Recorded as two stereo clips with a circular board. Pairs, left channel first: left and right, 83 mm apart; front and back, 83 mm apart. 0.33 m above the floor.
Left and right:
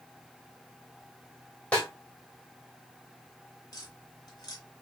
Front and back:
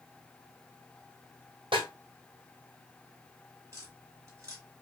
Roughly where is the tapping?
Behind left.